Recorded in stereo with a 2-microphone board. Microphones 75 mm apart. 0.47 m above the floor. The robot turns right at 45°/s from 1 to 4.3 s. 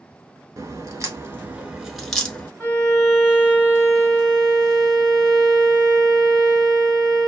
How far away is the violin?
About 0.9 m.